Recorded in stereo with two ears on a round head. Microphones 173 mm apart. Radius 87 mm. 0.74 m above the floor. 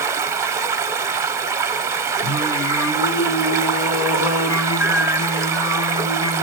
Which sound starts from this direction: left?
Singing, at 2.2 s.